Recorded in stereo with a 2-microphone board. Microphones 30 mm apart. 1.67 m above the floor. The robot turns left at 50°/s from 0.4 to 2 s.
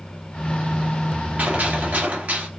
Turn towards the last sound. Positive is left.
turn(degrees=-105)